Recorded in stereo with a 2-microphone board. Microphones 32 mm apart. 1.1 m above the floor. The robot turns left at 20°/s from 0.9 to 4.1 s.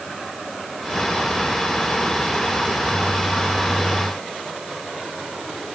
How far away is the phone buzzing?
No phone buzzing in this recording.